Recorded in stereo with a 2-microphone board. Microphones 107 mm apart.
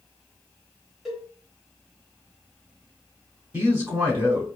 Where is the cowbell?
5° right (ahead or behind), 1.1 m.